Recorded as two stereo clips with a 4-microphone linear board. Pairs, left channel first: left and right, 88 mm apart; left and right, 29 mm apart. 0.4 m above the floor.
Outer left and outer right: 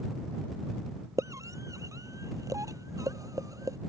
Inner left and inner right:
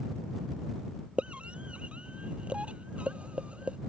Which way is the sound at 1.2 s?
35° right (ahead or behind).